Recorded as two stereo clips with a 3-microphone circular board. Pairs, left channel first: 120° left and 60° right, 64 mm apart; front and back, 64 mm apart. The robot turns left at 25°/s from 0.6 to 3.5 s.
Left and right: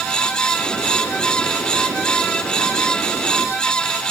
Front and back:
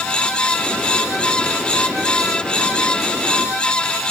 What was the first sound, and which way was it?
Only background noise.